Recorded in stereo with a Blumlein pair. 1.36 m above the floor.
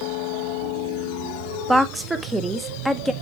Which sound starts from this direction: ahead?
A woman speaking, at 1.7 s.